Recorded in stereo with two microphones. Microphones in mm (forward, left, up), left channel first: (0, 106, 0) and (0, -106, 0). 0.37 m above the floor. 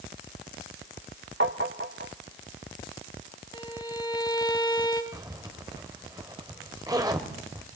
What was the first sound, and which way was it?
Tapping, 65° right (ahead or behind).